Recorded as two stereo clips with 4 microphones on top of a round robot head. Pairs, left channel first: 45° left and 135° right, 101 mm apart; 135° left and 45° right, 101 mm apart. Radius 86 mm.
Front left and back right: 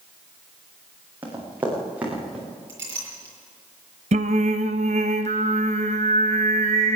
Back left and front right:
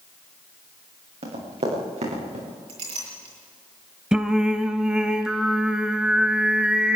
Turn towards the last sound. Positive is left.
turn(degrees=-125)